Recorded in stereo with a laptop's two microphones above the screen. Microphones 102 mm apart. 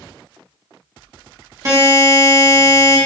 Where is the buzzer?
35° right (ahead or behind), 1.0 m.